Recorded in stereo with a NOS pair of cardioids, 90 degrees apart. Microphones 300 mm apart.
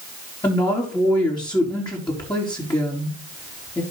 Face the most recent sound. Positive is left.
turn(degrees=15)